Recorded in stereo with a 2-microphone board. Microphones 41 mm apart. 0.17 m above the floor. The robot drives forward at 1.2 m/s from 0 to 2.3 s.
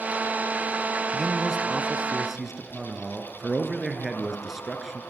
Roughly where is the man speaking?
Centre.